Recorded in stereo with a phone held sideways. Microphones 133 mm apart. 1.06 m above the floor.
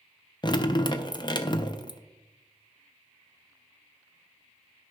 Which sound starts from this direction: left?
Dripping, at 0.4 s.